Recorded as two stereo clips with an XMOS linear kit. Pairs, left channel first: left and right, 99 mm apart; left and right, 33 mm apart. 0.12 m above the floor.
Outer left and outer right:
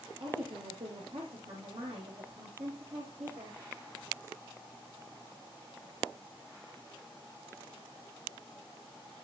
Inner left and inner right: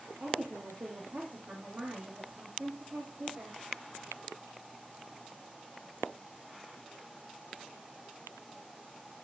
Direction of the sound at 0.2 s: 75° right (ahead or behind).